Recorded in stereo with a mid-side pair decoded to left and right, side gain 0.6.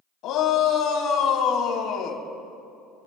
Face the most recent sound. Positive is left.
turn(degrees=60)